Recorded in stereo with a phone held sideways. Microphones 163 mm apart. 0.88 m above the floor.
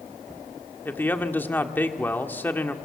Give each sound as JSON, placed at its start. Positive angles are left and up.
{"t": 0.8, "sound": "a man speaking", "side_deg": 10, "distance_m": 1.9}